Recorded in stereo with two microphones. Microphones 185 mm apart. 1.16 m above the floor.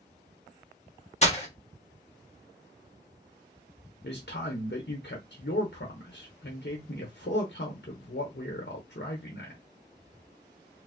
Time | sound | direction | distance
1.2 | breaking glass | 35° left (ahead or behind) | 1.3 m
4.0 | a man speaking | 65° left (ahead or behind) | 0.8 m